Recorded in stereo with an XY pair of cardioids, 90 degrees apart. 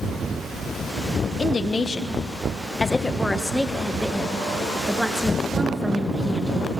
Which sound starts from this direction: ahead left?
A woman speaking, at 1.2 s.